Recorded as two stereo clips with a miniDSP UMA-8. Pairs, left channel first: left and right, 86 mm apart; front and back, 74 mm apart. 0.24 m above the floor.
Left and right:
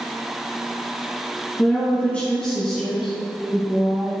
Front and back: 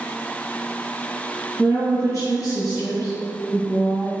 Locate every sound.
1.6 s a woman speaking: 30° left, 2.5 m; by 4.1 s 25° right, 2.5 m